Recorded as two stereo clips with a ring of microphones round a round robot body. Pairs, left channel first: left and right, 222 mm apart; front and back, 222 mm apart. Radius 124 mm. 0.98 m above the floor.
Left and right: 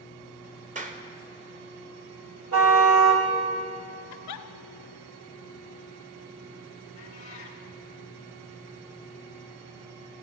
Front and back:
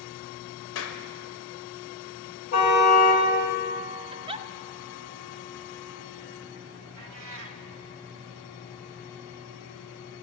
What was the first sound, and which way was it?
A clap, 35° right.